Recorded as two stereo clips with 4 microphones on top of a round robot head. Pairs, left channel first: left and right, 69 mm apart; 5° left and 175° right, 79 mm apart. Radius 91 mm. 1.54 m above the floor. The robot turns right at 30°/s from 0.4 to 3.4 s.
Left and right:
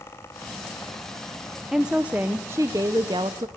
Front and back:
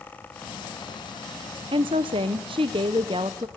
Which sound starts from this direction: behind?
A woman speaking, at 1.7 s.